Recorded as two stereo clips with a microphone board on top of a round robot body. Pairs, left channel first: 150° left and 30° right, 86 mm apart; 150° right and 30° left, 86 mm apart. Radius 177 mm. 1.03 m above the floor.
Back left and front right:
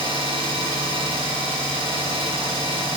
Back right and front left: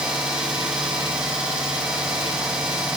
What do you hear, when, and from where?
0.0 s an engine running: 50° right, 3.5 m